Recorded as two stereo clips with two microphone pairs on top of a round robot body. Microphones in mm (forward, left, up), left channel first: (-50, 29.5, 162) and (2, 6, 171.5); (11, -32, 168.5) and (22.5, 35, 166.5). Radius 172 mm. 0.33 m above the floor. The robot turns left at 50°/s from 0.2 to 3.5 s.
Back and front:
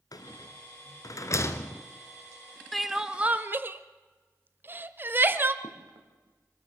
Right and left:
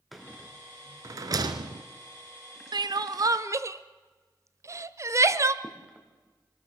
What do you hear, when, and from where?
0.1 s a rattle: 170° left, 1.3 m; by 1.8 s 90° left, 1.3 m
2.7 s crying: 75° left, 0.9 m; by 5.5 s 35° left, 0.9 m
5.6 s footsteps: 5° left, 3.5 m